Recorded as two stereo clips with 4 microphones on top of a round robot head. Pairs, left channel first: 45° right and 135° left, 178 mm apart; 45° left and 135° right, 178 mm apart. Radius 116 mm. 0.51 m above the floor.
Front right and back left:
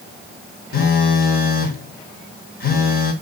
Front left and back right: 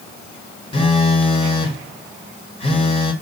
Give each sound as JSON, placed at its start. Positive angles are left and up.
{"t": 0.7, "sound": "a phone buzzing", "azimuth_deg": -15, "distance_m": 1.5}